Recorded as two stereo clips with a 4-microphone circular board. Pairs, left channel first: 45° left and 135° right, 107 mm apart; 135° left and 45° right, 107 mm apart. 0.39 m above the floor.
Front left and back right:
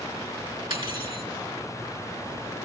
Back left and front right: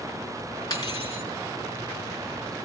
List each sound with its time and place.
0.7 s cutlery clinking: 170° right, 3 m